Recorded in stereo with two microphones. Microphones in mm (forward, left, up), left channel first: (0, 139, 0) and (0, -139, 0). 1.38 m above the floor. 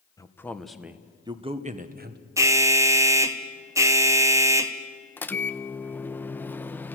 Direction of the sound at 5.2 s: 5° left (ahead or behind).